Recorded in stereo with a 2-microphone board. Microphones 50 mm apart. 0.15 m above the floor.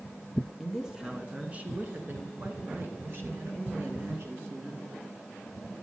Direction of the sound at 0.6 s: 5° right (ahead or behind).